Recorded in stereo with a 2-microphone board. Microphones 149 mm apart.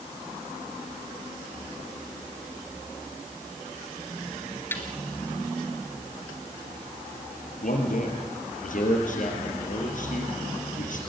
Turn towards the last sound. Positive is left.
turn(degrees=60)  # may be behind; listen again after turning